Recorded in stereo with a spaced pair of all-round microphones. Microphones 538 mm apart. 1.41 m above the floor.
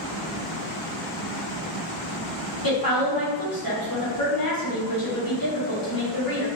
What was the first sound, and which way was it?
A woman speaking, 35° left (ahead or behind).